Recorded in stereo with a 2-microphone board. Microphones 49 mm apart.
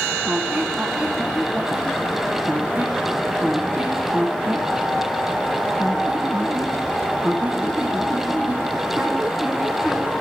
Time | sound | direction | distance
0.2 | a squeak | 20° right (ahead or behind) | 2.5 m